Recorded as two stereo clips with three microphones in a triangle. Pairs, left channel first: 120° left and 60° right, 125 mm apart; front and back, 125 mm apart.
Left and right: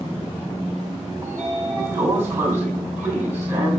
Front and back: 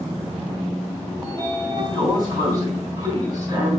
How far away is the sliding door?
About 3 m.